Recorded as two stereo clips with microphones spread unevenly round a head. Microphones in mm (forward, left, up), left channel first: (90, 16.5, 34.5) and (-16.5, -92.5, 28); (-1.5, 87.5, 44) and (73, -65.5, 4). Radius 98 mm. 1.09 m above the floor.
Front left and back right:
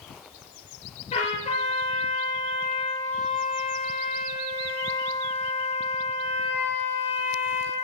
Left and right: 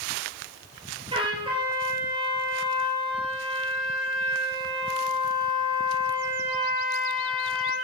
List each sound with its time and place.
1.1 s a trumpet: straight ahead, 6.5 m